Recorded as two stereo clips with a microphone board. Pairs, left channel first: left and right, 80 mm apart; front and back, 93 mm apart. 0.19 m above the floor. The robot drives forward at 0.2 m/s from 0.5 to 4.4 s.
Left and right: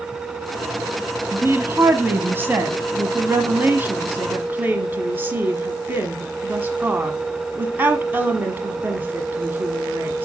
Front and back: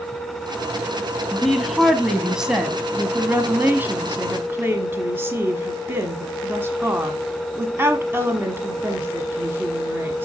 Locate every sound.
1.3 s a woman speaking: 85° right, 1.2 m; by 10.3 s 135° right, 1.3 m